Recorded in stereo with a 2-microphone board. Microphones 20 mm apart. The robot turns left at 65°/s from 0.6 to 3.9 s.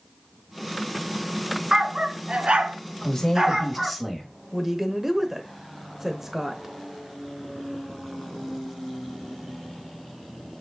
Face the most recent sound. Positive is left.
turn(degrees=-20)  # may be behind; listen again after turning